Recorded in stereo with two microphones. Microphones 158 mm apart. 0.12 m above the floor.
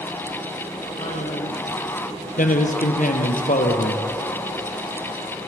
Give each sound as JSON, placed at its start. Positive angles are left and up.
{"t": 1.0, "sound": "a man speaking", "side_deg": 50, "distance_m": 4.0}
{"t": 2.4, "sound": "a man speaking", "side_deg": 60, "distance_m": 2.5}